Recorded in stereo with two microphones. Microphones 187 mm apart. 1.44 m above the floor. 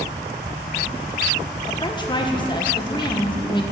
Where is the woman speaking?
25° left (ahead or behind), 1.5 m.